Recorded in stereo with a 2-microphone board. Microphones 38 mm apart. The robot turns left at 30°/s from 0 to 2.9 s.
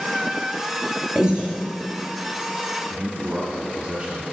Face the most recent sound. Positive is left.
turn(degrees=-35)  # may be behind; listen again after turning